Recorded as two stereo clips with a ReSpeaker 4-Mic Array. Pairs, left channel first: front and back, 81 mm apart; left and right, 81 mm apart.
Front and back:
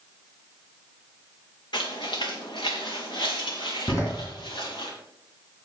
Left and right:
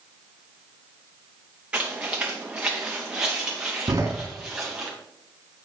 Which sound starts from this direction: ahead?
Footsteps, at 1.7 s.